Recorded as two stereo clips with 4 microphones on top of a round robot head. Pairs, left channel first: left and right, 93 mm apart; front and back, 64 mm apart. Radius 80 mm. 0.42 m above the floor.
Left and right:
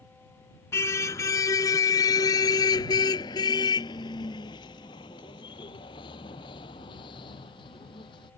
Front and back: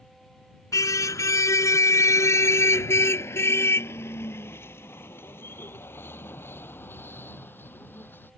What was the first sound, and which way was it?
A car horn, 25° left.